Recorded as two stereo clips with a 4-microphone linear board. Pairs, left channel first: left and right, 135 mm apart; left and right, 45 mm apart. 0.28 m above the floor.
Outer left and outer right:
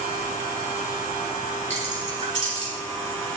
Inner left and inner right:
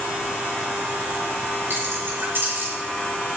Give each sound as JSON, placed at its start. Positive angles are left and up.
{"t": 1.7, "sound": "keys jangling", "side_deg": -60, "distance_m": 3.0}